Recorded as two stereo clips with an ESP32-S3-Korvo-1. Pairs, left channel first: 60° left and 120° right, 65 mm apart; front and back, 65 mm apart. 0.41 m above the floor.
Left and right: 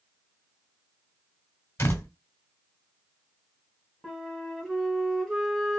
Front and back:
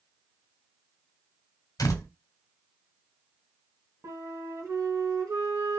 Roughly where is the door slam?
Ahead.